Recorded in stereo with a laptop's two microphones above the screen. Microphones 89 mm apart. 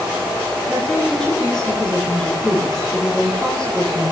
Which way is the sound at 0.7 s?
10° left (ahead or behind).